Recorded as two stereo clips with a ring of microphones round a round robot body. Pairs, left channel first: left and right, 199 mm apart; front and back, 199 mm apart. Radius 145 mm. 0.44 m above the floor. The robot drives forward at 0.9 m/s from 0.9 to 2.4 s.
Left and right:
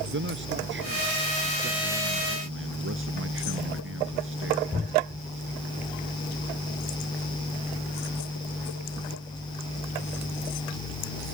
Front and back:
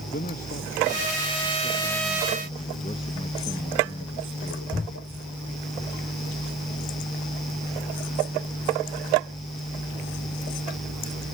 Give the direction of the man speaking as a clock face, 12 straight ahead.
2 o'clock.